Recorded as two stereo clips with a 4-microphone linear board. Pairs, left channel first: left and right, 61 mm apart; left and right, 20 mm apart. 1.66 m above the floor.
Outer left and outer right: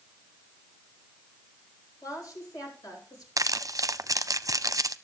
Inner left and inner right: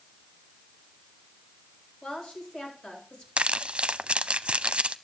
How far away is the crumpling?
About 0.6 m.